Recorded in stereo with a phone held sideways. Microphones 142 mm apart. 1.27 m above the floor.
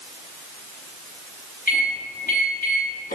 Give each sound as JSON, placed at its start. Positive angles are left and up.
{"t": 1.7, "sound": "a microwave", "side_deg": 85, "distance_m": 1.2}